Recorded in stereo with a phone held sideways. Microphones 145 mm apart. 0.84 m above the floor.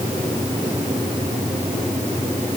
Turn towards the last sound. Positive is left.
No sound to turn to.